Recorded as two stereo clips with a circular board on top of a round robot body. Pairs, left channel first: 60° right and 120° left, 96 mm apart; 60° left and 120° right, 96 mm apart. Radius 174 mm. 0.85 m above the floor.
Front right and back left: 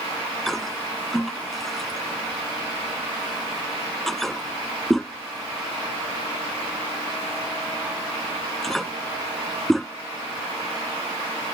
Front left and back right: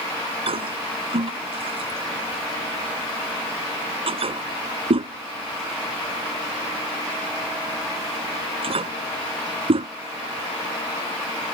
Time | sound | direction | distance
0.5 | a toilet flushing | 150° right | ?